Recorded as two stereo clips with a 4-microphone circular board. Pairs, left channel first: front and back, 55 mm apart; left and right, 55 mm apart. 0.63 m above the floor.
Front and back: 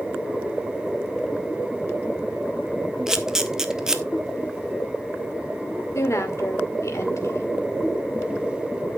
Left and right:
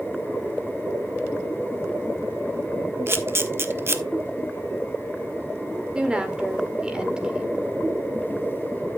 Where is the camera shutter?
105° right, 1.0 m.